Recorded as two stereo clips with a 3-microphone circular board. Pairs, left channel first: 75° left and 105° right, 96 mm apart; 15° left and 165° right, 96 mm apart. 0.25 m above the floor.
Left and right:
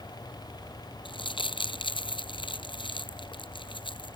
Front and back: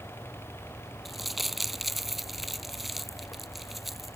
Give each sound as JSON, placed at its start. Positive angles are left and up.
{"t": 1.1, "sound": "crumpling", "azimuth_deg": 105}